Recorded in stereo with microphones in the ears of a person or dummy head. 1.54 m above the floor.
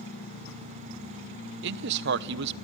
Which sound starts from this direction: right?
A man speaking, at 1.6 s.